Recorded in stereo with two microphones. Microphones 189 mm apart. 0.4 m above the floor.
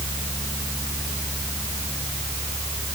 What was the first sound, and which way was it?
Only background noise.